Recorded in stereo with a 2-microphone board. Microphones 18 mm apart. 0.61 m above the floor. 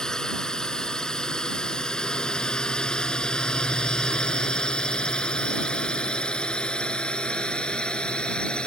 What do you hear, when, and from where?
0.0 s a drone: 40° left (ahead or behind); by 8.7 s 70° left (ahead or behind)